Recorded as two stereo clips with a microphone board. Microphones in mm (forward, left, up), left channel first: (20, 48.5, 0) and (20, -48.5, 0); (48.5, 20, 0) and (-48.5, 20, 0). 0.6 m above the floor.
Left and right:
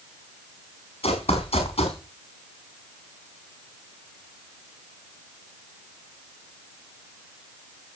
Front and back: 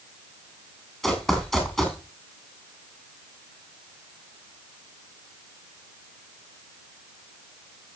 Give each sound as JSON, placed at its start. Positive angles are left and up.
{"t": 1.0, "sound": "running footsteps", "azimuth_deg": 85, "distance_m": 5.5}